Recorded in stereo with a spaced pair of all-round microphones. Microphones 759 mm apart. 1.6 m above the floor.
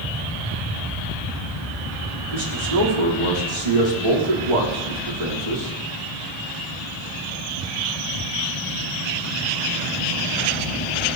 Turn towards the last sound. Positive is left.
turn(degrees=-65)  # may be behind; listen again after turning